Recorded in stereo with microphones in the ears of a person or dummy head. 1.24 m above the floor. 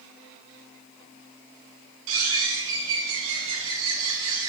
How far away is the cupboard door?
I don't hear a cupboard door.